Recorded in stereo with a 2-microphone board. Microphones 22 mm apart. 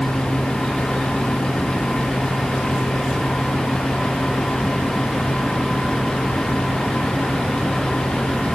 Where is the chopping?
I don't hear chopping.